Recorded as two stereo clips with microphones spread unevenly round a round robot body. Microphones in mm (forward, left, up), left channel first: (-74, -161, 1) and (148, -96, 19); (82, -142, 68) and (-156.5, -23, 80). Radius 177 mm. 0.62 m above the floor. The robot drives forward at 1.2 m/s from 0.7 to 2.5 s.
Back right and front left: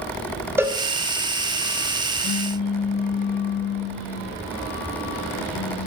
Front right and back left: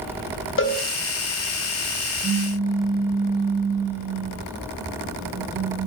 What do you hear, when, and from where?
0.6 s a cowbell: 65° right, 3 m
2.2 s a pop: 155° right, 0.7 m; by 5.9 s 165° right, 0.9 m